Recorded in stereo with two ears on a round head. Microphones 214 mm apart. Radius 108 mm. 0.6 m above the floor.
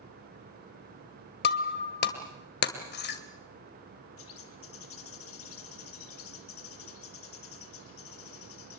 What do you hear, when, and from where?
1.4 s breaking glass: 45° left (ahead or behind), 1.9 m
4.2 s a bird: 65° left (ahead or behind), 2.5 m